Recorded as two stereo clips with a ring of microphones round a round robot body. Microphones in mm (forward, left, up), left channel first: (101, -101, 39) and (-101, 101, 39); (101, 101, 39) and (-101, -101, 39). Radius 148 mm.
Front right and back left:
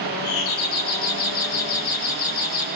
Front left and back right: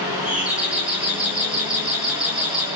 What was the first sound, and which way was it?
A doorbell, 50° right.